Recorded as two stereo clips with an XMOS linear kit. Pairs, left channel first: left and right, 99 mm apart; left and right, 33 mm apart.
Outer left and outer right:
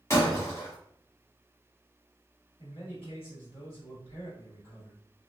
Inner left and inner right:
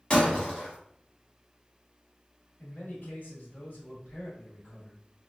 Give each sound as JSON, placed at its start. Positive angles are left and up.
{"t": 0.1, "sound": "breaking glass", "side_deg": 30, "distance_m": 1.1}
{"t": 2.6, "sound": "a man speaking", "side_deg": 65, "distance_m": 1.4}